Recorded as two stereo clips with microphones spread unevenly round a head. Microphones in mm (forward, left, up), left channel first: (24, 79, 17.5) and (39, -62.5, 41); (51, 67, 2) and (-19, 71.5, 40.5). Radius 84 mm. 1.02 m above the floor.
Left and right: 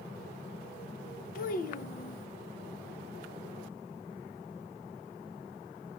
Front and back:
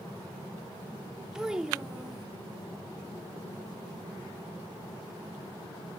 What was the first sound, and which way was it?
A child speaking, 85° left.